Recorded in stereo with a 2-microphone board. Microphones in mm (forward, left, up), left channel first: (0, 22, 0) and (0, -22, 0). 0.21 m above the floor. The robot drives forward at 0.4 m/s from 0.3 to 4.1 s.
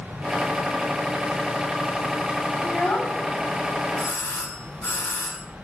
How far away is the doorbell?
About 2 m.